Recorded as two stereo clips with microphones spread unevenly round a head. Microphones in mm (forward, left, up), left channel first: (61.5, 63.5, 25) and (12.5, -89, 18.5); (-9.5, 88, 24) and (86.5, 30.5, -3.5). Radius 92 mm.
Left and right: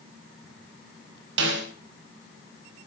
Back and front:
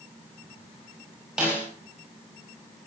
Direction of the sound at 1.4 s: 115° right.